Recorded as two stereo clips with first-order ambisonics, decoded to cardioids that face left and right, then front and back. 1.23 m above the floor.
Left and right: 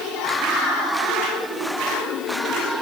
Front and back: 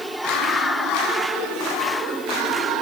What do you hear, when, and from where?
Only background noise.